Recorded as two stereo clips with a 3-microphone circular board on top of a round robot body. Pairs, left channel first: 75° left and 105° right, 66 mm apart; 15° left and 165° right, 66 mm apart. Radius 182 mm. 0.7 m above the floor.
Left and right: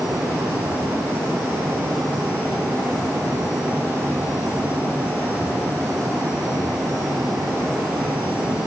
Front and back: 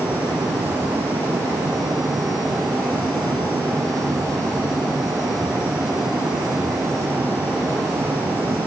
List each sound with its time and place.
Only background noise.